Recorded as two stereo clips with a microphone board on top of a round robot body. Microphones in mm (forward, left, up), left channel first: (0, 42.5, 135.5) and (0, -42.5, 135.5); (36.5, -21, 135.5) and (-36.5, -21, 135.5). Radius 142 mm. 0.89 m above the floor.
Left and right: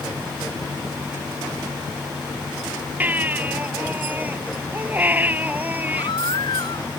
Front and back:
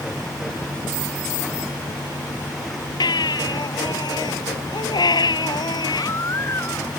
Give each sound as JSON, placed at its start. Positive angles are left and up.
{"t": 3.0, "sound": "a baby crying", "azimuth_deg": -20}
{"t": 5.9, "sound": "a baby crying", "azimuth_deg": 55}